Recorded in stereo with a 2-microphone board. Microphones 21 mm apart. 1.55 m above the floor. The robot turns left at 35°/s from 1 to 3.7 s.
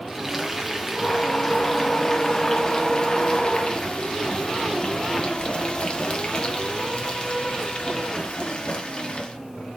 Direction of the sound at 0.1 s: 165° right.